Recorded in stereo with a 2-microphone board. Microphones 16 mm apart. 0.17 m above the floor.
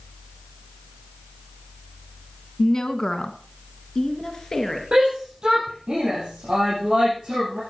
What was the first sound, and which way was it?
A woman speaking, 35° left (ahead or behind).